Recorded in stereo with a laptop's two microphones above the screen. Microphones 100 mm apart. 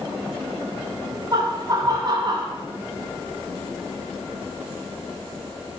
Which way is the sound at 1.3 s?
40° right (ahead or behind).